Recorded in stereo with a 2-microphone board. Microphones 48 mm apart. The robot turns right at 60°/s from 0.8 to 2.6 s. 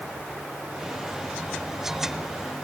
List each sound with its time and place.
Only background noise.